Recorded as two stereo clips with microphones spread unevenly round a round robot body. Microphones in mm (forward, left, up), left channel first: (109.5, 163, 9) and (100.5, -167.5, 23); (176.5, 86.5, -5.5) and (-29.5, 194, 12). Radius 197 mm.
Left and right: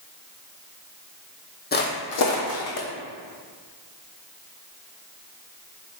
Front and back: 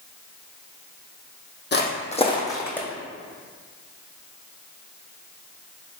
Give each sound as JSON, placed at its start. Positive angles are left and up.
{"t": 1.7, "sound": "footsteps", "azimuth_deg": 25, "distance_m": 1.1}